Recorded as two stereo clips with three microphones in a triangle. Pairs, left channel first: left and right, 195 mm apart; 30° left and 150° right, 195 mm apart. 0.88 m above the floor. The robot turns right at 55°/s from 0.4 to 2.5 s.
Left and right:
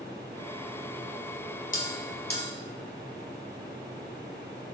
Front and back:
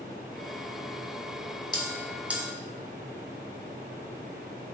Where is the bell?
95° left, 2 m; by 2.5 s 135° left, 2 m.